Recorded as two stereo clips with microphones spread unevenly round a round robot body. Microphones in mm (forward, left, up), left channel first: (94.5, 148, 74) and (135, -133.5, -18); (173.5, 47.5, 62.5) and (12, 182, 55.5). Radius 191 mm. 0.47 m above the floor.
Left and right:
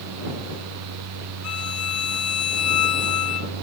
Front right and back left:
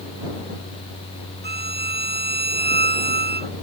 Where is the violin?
100° left.